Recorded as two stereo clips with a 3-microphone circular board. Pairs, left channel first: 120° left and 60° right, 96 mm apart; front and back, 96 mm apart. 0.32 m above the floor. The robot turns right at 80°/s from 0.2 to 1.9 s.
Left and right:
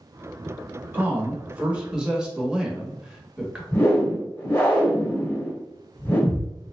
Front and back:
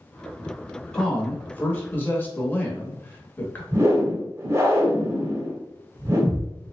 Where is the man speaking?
70° right, 0.9 m; by 3.6 s 5° left, 0.9 m.